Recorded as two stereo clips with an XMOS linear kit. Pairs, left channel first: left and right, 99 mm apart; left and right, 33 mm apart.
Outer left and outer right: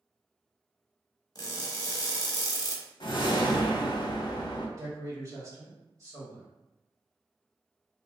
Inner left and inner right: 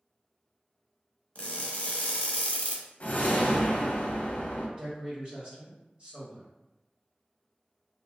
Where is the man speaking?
35° right (ahead or behind), 1.6 m.